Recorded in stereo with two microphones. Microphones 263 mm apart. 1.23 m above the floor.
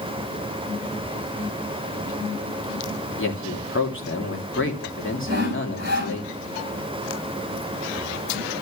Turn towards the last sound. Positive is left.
turn(degrees=-35)  # may be behind; listen again after turning